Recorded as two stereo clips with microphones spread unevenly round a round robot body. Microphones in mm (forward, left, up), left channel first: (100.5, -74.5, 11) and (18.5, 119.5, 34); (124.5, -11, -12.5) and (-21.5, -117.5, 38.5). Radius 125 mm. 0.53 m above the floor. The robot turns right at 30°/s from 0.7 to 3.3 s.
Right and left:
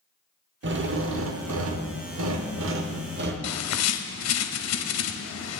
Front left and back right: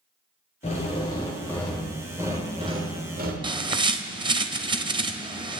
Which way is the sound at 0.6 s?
85° left.